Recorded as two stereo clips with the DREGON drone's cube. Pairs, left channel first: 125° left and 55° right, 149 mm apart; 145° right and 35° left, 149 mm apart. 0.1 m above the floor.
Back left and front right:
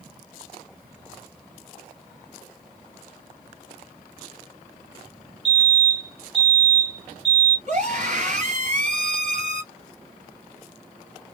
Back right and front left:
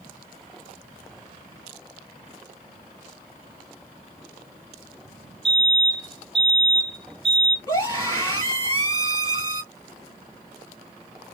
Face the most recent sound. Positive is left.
turn(degrees=-85)